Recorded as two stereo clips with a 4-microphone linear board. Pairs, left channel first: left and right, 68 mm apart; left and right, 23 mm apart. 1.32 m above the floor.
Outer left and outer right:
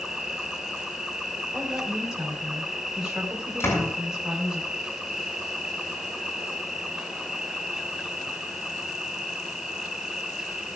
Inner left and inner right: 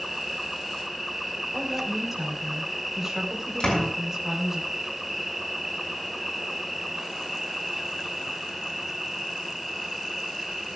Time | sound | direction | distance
0.0 | an insect | 5° right (ahead or behind) | 1.3 m
1.5 | a woman speaking | 10° right (ahead or behind) | 5 m
3.6 | a door slam | 40° left (ahead or behind) | 7 m